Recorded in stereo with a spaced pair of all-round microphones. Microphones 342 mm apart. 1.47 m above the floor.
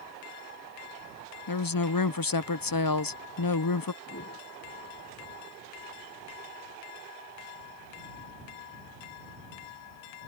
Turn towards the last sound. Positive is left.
turn(degrees=45)  # may be behind; listen again after turning